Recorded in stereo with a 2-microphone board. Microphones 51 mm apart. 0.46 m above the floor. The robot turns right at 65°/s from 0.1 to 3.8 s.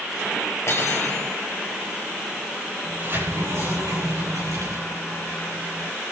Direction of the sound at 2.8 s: 155° right.